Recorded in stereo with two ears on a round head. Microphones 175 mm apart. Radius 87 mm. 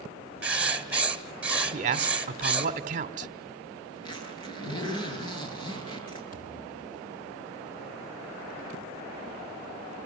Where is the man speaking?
40° right (ahead or behind), 1.7 m.